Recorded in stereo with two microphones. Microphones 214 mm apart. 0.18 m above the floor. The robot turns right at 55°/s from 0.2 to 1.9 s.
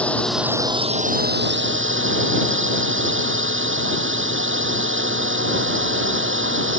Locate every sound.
0.0 s a drone: 175° left; by 6.8 s 95° right